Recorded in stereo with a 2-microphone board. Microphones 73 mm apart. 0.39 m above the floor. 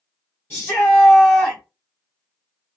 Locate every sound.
0.5 s a shout: 30° left (ahead or behind), 1.6 m